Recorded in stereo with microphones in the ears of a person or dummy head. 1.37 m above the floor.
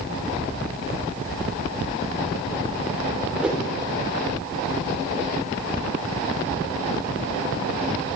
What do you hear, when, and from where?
3.4 s a whoosh: 5° right (ahead or behind), 3 m